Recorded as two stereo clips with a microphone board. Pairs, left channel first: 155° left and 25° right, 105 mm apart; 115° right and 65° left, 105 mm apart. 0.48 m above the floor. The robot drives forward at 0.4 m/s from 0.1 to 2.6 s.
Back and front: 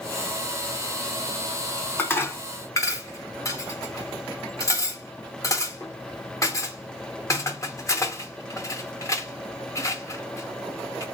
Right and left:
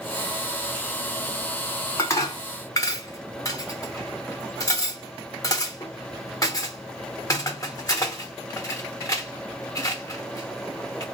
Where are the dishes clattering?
145° right, 0.8 m; by 11.0 s 155° right, 0.9 m.